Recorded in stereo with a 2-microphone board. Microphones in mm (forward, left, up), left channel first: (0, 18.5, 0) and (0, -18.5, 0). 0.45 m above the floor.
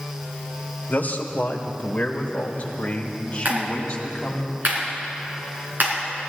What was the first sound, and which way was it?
A man speaking, 50° left (ahead or behind).